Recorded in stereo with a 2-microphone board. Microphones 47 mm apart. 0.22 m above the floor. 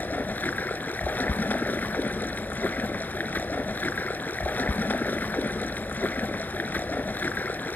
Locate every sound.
0.0 s running water: 45° left (ahead or behind), 1.2 m